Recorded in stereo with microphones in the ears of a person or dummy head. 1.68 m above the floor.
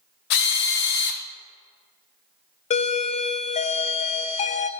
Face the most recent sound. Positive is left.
turn(degrees=40)  # may be behind; listen again after turning